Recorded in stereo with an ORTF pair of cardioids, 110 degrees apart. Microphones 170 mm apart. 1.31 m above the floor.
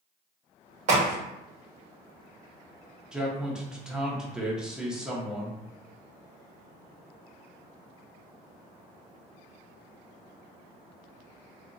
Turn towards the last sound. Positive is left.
turn(degrees=-5)